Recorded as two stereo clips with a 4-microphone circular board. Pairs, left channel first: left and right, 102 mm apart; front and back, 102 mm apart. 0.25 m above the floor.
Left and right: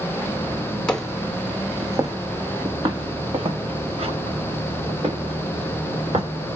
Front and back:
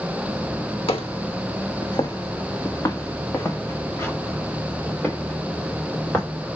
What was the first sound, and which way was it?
Footsteps, 10° left.